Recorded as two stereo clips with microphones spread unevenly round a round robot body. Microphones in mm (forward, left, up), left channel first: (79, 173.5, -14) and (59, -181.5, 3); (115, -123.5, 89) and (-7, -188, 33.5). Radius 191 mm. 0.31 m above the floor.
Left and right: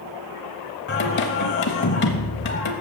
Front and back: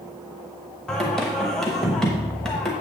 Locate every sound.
0.9 s singing: 135° left, 0.7 m